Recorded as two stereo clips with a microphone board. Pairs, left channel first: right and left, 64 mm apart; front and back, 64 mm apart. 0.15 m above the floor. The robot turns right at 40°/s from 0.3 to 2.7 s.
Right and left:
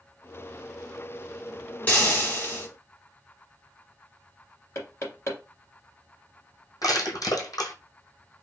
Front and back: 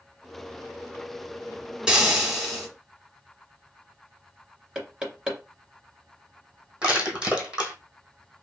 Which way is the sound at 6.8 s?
105° right.